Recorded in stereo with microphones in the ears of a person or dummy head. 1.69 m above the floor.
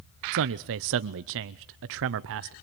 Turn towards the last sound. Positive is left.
turn(degrees=-65)  # may be behind; listen again after turning